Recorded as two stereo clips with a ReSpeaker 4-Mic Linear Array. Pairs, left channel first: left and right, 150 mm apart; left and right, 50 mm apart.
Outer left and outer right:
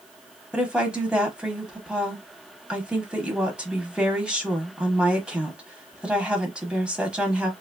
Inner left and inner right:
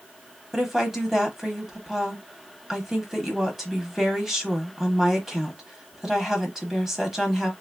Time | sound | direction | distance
0.5 | a woman speaking | 5° right (ahead or behind) | 1.0 m